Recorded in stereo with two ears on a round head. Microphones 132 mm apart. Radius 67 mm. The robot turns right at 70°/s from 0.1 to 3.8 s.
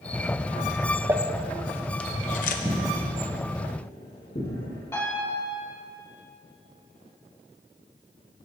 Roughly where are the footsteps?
Right.